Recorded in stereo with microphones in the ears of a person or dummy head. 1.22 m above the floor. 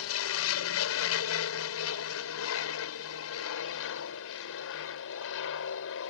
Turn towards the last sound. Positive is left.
turn(degrees=70)  # may be behind; listen again after turning